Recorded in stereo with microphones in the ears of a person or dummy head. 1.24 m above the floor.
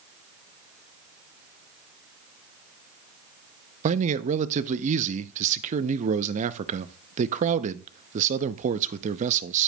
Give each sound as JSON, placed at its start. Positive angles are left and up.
{"t": 3.8, "sound": "a man speaking", "side_deg": -40, "distance_m": 0.6}